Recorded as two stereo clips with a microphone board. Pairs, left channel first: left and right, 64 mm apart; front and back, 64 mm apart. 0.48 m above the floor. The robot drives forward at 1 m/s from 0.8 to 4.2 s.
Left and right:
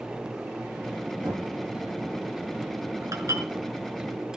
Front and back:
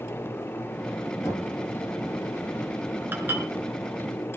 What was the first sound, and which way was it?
Knocking, 45° right.